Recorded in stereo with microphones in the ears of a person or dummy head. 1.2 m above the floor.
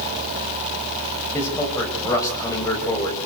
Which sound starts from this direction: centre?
A man speaking, at 1.3 s.